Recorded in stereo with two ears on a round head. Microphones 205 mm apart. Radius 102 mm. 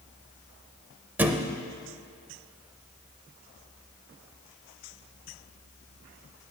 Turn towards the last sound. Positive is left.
turn(degrees=-10)  # may be behind; listen again after turning